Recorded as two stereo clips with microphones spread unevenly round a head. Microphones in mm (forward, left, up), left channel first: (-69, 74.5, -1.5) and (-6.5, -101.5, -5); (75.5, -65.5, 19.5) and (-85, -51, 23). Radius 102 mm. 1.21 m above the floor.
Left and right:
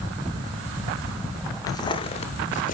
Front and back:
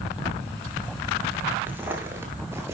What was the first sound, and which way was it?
Footsteps, 125° left.